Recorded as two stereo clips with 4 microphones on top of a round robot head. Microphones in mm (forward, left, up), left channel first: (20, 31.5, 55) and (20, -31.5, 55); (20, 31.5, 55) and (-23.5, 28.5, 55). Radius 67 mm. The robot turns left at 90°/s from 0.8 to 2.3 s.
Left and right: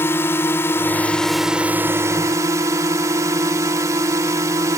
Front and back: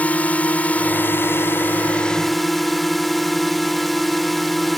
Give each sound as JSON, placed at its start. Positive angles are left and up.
{"t": 0.0, "sound": "a drone", "azimuth_deg": 50}